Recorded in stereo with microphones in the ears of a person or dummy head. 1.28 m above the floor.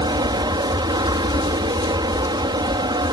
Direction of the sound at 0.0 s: 20° right (ahead or behind).